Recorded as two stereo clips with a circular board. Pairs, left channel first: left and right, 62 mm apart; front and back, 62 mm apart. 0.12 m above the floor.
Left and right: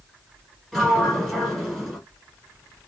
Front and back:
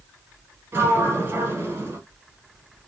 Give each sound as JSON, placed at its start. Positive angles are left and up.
{"t": 0.7, "sound": "a sliding door", "azimuth_deg": 175, "distance_m": 1.4}